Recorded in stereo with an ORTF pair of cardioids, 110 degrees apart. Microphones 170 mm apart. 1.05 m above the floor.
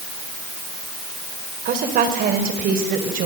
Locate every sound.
1.6 s a woman speaking: 60° right, 4 m; by 3.3 s 55° right, 5.5 m